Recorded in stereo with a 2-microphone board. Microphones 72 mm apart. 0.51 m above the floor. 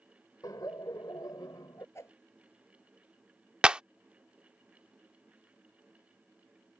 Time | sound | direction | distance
0.4 | laughter | 60° left (ahead or behind) | ?
1.9 | a whoosh | 40° left (ahead or behind) | ?
3.6 | a clap | 15° right (ahead or behind) | ?